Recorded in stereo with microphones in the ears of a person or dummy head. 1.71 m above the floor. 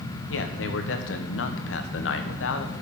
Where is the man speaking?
80° left, 1.1 m.